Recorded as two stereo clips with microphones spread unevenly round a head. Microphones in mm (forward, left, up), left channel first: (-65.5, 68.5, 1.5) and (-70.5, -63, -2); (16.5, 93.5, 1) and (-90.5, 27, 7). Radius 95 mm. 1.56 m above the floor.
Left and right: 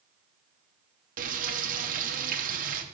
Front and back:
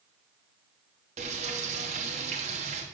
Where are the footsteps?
No footsteps in this recording.